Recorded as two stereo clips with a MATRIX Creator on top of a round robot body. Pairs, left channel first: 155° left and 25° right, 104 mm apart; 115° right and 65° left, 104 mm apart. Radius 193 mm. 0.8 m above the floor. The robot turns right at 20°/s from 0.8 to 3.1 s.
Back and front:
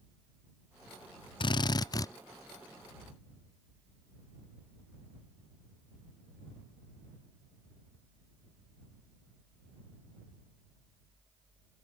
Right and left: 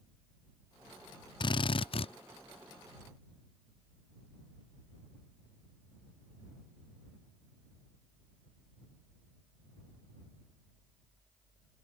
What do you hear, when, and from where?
1.4 s a drill: 160° right; by 2.1 s 145° right